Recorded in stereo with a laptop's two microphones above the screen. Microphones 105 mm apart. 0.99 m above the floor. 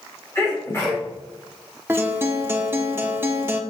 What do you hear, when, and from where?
0.3 s a sneeze: 25° left (ahead or behind), 3.5 m
1.9 s a guitar: 20° right (ahead or behind), 1.1 m